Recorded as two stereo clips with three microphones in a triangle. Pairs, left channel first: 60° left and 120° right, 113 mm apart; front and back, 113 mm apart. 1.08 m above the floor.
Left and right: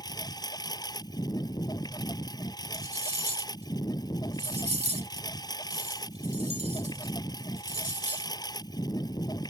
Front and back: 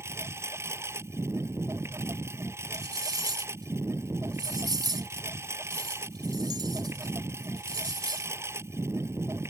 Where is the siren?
No siren in this recording.